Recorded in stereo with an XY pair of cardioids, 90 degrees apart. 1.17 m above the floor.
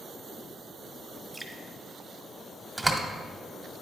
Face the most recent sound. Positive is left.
turn(degrees=-15)